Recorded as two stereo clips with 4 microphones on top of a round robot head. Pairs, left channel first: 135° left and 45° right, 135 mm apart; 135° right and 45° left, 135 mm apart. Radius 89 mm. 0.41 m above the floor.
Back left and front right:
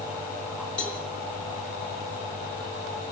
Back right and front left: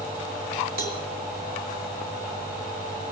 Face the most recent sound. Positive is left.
turn(degrees=50)